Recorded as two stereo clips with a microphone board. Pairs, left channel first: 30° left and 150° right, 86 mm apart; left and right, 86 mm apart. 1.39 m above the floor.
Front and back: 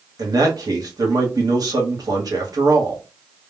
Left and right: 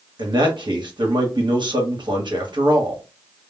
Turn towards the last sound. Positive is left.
turn(degrees=-110)